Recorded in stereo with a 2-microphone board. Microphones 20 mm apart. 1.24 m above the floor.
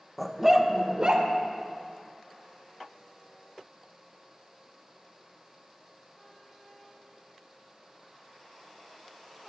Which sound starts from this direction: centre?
A dog barking, at 0.2 s.